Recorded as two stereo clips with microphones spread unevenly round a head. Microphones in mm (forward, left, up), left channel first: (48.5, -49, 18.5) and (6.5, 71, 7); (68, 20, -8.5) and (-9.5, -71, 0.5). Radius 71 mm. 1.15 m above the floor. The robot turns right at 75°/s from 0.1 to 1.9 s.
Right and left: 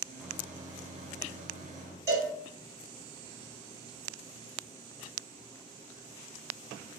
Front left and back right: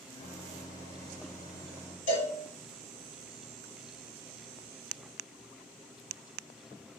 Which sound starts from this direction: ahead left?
A cowbell, at 2.1 s.